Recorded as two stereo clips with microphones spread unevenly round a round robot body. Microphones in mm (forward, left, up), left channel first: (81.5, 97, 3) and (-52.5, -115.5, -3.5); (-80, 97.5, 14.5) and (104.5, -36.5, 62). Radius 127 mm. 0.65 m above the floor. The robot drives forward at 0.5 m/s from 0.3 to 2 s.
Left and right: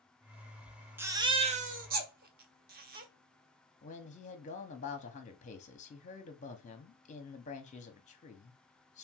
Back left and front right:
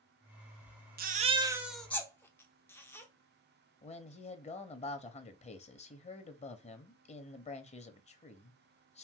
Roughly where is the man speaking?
Left.